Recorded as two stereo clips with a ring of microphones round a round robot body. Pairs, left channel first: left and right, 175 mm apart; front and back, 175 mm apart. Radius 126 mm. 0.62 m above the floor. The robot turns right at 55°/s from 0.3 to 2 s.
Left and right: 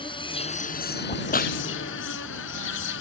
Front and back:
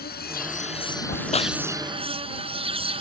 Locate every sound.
0.0 s an insect: 30° left; by 3.0 s 120° left
1.1 s a crack: 40° left; by 1.6 s 65° left